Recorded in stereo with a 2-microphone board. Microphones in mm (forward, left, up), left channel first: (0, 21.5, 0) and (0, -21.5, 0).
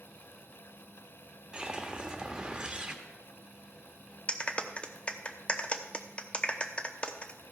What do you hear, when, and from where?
1.5 s a whoosh: 15° right (ahead or behind), 1.2 m
4.3 s a clap: 30° left (ahead or behind), 0.8 m